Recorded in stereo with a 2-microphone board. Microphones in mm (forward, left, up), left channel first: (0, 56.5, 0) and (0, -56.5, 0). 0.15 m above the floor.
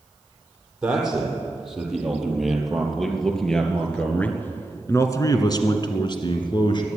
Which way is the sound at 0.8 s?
5° right (ahead or behind).